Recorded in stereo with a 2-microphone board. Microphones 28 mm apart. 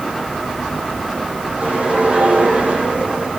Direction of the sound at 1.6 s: 65° right (ahead or behind).